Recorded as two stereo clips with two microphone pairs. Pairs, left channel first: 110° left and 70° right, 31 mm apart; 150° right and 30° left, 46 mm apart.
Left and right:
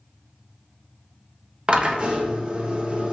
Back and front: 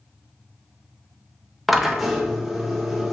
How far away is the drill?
About 0.8 m.